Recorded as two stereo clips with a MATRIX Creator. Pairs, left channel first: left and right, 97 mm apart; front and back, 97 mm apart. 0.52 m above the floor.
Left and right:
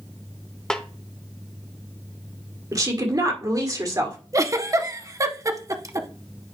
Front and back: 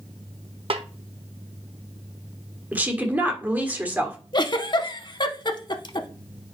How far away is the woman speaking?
About 1.6 m.